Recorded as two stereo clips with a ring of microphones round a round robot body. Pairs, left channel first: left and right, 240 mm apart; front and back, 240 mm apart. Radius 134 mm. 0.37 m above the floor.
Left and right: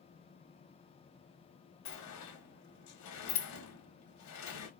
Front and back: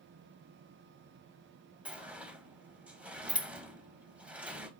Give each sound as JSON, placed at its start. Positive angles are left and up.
{"t": 1.9, "sound": "a sliding door", "azimuth_deg": 95, "distance_m": 0.8}